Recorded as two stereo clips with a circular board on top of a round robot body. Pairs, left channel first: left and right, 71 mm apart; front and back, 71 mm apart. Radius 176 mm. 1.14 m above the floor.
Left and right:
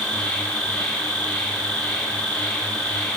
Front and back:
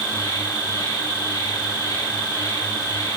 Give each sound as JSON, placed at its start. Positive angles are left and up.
{"t": 0.0, "sound": "an insect", "azimuth_deg": 10, "distance_m": 9.0}